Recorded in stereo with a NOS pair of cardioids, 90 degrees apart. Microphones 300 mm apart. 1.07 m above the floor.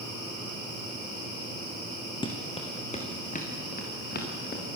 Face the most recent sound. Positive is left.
turn(degrees=35)